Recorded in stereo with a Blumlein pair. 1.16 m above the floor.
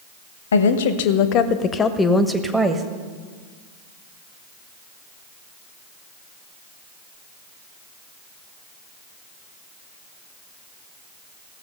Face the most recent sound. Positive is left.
turn(degrees=-15)